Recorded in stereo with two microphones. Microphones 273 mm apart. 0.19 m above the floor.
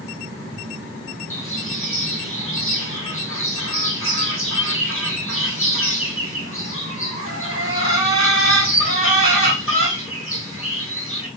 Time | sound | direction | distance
1.3 | a bird | 55° left (ahead or behind) | 2.5 m